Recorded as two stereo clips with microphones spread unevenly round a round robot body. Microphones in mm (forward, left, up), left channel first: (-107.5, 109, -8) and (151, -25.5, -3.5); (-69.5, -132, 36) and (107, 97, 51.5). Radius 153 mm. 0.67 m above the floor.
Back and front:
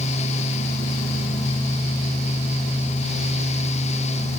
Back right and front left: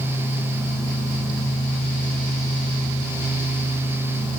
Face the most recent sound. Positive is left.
No sound to turn to.